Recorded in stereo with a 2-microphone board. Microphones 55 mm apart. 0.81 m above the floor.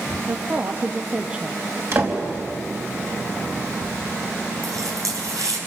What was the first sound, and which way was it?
A woman speaking, 45° right (ahead or behind).